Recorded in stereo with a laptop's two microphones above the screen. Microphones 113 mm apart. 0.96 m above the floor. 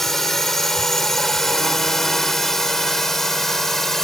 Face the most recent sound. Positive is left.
turn(degrees=5)  # may be behind; listen again after turning